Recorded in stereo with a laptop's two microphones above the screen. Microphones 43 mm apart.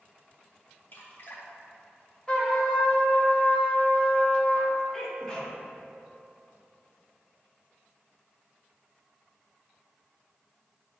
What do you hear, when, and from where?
0.9 s dripping: 50° left (ahead or behind), 1.3 m
2.3 s a trumpet: 20° left (ahead or behind), 1.5 m
4.9 s a sneeze: 15° left (ahead or behind), 2 m